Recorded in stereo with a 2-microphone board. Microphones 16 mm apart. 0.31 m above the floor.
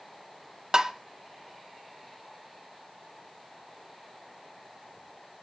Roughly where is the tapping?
Right.